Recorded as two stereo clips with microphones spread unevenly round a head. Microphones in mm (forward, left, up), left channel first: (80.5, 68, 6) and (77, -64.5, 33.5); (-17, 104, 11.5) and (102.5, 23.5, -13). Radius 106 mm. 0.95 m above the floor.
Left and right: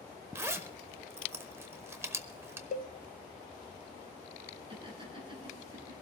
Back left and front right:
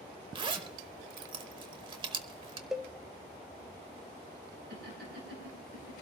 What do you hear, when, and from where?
0.3 s a zipper: 80° right, 0.7 m
2.7 s a cowbell: 60° left, 0.7 m
4.7 s laughter: 40° right, 8 m